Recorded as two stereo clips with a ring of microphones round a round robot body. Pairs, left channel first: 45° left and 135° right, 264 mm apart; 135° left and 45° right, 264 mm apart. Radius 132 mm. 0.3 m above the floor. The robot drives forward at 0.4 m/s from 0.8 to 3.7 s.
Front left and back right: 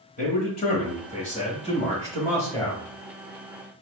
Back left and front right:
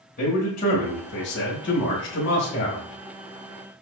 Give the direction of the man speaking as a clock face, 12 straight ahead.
9 o'clock.